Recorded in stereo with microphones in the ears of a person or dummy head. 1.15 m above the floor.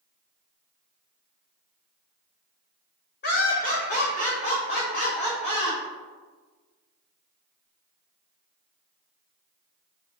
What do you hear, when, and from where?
3.2 s laughter: 50° left (ahead or behind), 0.9 m; by 5.8 s 30° left (ahead or behind), 2 m